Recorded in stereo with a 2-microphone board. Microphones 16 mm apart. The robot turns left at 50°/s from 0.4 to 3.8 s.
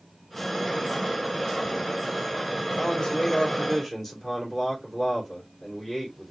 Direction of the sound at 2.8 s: 45° left.